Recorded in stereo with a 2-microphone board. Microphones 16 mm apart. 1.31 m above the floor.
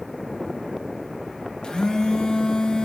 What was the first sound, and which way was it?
A phone buzzing, 65° left (ahead or behind).